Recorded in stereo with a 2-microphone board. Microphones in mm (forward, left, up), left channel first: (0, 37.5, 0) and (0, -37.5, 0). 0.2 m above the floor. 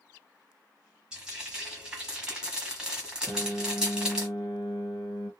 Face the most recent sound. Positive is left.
turn(degrees=30)  # may be behind; listen again after turning